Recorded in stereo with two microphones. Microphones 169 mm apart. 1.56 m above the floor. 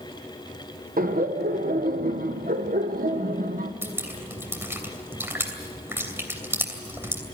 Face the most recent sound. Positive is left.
turn(degrees=-15)  # may be behind; listen again after turning